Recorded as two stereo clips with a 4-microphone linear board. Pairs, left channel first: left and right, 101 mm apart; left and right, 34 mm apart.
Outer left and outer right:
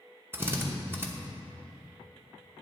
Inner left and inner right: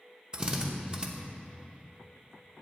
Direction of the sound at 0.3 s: 25° right (ahead or behind).